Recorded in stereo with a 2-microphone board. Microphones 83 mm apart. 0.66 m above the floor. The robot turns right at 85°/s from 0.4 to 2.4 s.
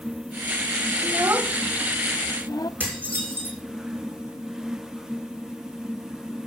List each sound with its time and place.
1.0 s a child speaking: 45° right (ahead or behind), 0.5 m; by 2.7 s 50° left (ahead or behind), 0.5 m
2.8 s dishes clattering: 20° right (ahead or behind), 6.5 m